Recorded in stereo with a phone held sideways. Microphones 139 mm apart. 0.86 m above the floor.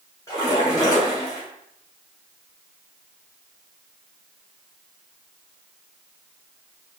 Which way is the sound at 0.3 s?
25° left (ahead or behind).